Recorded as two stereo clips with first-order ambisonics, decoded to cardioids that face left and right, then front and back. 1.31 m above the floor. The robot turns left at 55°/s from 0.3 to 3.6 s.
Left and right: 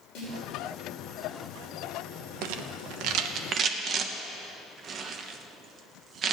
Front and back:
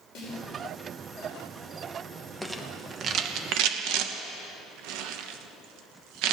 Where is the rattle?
85° right, 1.0 m; by 6.3 s 150° right, 1.0 m.